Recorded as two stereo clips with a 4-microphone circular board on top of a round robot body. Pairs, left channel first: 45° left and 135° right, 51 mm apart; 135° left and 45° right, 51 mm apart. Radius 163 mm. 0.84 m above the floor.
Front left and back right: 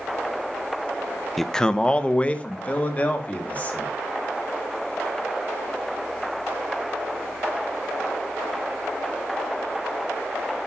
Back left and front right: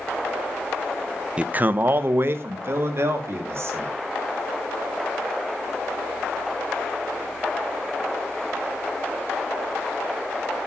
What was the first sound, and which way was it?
A man speaking, 35° right.